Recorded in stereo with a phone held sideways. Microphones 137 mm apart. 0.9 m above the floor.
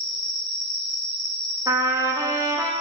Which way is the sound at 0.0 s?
35° left (ahead or behind).